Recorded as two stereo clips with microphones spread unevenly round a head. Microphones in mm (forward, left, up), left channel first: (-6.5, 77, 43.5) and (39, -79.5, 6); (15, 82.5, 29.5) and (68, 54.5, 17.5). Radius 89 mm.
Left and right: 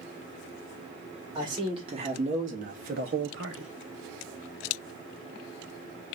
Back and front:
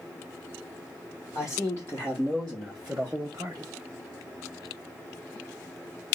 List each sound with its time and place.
1.4 s a man speaking: 145° right, 1.8 m; by 3.7 s 80° right, 0.9 m